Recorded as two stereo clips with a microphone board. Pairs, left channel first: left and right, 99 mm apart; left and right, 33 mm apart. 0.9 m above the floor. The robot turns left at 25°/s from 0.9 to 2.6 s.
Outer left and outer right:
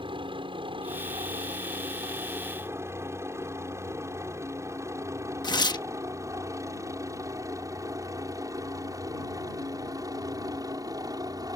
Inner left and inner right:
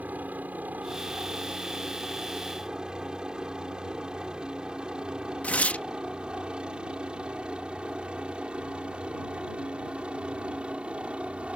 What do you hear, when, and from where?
0.0 s a helicopter: 55° right (ahead or behind); by 11.6 s 40° right (ahead or behind)
5.4 s tearing paper: 45° left (ahead or behind)